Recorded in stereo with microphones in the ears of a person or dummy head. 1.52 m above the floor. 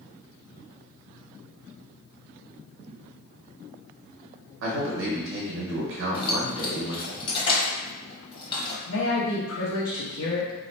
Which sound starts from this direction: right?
A man speaking, at 4.6 s.